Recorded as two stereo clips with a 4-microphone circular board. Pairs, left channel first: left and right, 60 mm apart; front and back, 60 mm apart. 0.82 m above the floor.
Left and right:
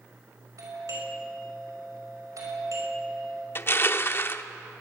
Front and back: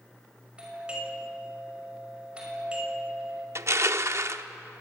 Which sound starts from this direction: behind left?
Crushing, at 3.5 s.